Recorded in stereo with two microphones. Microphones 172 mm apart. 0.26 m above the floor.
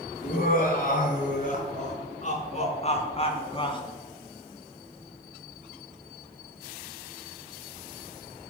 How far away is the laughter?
About 4.5 m.